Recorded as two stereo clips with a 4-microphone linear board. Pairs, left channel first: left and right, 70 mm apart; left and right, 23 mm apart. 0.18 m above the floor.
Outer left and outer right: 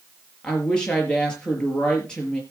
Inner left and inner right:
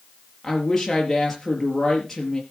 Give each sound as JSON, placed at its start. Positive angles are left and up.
{"t": 0.4, "sound": "a woman speaking", "side_deg": 10, "distance_m": 4.5}